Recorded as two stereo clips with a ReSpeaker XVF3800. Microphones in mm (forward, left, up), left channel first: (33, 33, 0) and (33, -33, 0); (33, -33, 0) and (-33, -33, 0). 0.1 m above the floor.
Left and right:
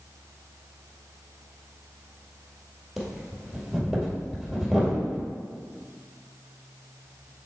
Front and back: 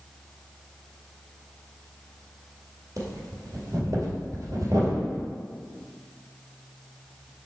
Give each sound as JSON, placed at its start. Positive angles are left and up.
{"t": 3.0, "sound": "breathing", "azimuth_deg": -175, "distance_m": 2.0}